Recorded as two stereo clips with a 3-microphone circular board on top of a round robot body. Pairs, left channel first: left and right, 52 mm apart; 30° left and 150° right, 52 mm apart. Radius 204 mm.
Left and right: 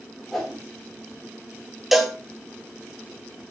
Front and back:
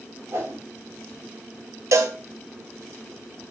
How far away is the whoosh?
About 4 m.